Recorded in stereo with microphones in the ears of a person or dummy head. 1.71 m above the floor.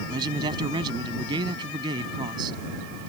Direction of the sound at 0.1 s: 25° right (ahead or behind).